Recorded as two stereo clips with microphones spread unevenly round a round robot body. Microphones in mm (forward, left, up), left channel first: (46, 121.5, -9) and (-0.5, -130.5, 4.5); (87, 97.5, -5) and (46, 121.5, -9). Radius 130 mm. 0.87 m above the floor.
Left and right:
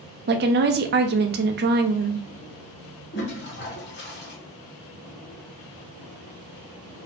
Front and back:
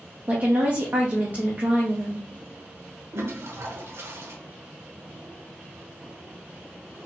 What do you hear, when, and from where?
0.3 s a woman speaking: 150° right, 0.5 m
3.1 s a toilet flushing: 130° left, 1.0 m